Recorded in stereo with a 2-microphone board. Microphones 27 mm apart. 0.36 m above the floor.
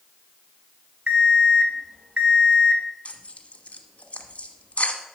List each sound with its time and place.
1.1 s an alarm clock: 50° right (ahead or behind), 1.1 m
3.0 s tearing paper: 60° left (ahead or behind), 1.3 m